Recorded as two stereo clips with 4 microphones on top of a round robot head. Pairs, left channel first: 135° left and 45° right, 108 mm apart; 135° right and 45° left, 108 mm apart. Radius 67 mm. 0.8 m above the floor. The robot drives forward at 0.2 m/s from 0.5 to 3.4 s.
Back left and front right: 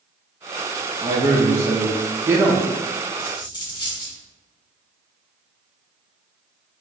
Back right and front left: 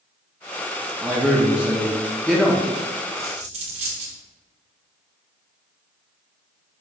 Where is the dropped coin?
80° left, 1.6 m.